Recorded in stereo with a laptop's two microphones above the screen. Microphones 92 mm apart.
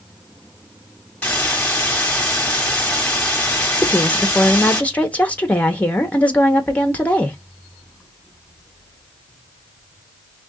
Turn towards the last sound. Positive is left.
turn(degrees=15)  # may be behind; listen again after turning